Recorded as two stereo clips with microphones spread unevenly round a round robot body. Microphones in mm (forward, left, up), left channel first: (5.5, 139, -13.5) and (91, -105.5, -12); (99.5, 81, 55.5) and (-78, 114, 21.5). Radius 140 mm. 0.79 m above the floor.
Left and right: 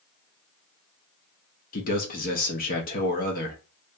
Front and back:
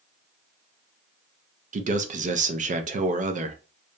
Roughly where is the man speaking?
Behind.